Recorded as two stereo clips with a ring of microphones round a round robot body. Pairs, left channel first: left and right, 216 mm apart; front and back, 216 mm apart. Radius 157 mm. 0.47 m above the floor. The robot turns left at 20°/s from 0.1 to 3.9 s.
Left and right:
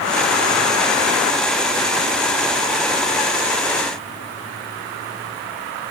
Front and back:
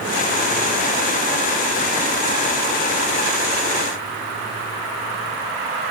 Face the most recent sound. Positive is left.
No sound to turn to.